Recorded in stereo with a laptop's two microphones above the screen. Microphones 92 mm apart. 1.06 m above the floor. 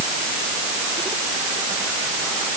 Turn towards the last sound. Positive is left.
No sound to turn to.